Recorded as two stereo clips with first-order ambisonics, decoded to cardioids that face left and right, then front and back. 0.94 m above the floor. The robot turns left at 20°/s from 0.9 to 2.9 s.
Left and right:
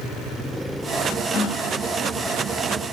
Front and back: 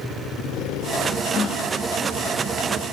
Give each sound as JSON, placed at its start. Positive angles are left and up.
{"t": 1.3, "sound": "a gasp", "azimuth_deg": 50, "distance_m": 1.2}